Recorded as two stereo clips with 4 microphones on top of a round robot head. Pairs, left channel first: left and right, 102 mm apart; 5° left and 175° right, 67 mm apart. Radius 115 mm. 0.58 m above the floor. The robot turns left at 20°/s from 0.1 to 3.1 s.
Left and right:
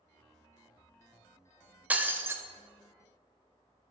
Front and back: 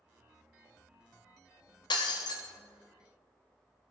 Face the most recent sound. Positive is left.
turn(degrees=-40)